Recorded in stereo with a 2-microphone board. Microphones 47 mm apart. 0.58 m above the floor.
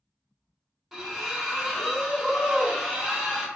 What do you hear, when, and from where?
0.9 s a splash: 5° right (ahead or behind), 0.9 m